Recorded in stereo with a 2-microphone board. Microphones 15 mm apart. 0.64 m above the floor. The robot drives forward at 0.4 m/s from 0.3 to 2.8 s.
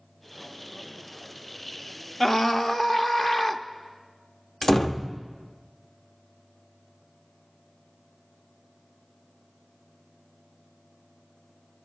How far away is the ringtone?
I don't hear a ringtone.